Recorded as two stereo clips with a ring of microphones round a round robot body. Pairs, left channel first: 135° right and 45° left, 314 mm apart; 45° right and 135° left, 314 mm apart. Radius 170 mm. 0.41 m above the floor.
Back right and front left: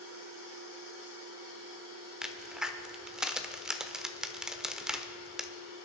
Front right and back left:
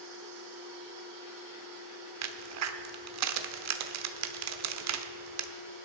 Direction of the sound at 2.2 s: 130° left.